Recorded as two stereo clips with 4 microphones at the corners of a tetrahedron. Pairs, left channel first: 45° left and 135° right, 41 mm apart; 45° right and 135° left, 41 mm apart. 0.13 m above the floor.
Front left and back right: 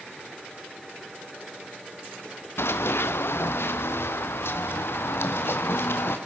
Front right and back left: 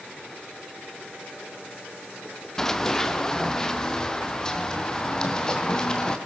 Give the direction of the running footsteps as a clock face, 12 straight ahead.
11 o'clock.